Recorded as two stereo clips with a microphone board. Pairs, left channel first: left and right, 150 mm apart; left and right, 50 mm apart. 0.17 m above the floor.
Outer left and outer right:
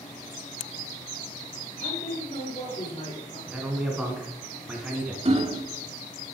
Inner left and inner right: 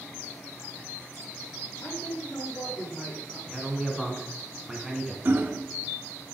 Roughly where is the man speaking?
Centre.